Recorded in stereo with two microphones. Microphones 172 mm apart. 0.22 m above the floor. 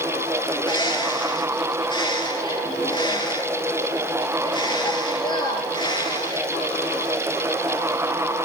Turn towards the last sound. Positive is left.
turn(degrees=25)  # may be behind; listen again after turning